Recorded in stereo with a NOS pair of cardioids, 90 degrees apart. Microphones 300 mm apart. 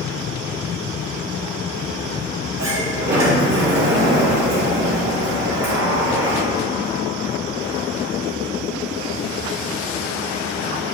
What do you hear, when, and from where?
2.6 s a sliding door: 60° right, 2.5 m